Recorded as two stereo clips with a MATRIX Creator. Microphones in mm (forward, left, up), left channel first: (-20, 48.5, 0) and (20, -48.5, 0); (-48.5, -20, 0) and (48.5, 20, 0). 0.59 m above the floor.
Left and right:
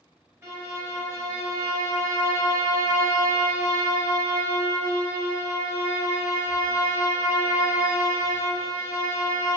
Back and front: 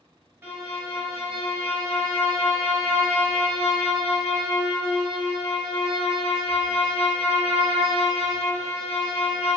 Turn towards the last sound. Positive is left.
turn(degrees=-20)